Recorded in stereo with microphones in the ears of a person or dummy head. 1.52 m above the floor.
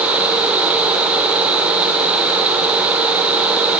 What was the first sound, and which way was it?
Only background noise.